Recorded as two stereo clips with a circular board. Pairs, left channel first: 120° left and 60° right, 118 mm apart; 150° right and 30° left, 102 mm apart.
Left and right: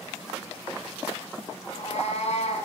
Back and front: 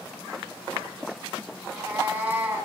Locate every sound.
1.6 s a cat meowing: 100° left, 3.5 m